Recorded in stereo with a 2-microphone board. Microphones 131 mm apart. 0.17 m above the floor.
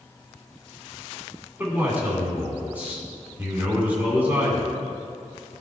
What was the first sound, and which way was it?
A man speaking, 15° right (ahead or behind).